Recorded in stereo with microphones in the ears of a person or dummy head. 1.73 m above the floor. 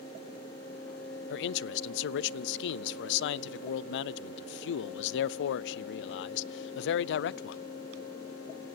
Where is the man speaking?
65° left (ahead or behind), 0.6 m.